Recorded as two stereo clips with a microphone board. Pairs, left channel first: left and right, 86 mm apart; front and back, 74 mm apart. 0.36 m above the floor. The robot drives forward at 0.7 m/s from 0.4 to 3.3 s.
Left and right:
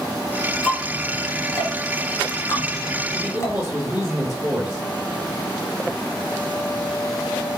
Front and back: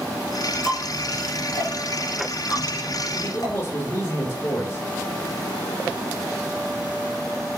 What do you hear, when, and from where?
0.6 s ticking: 15° left, 3.5 m; by 3.5 s 35° left, 2 m
3.1 s a man speaking: 20° right, 1.6 m